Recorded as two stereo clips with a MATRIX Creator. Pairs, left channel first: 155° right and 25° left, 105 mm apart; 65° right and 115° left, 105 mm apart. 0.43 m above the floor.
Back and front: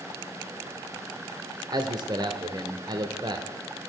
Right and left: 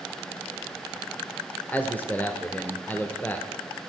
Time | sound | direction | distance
1.7 | a man speaking | straight ahead | 1.1 m